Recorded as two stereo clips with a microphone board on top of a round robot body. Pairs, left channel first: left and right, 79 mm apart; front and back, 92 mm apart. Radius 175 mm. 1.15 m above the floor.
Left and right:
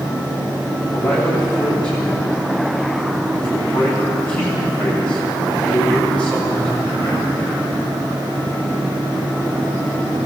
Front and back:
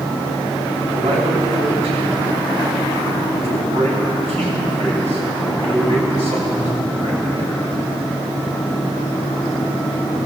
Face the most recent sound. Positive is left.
turn(degrees=165)